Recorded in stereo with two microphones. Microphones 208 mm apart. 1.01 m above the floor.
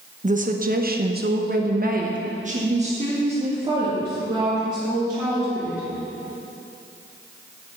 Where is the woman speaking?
35° right (ahead or behind), 1.0 m; by 5.9 s 15° right (ahead or behind), 3 m.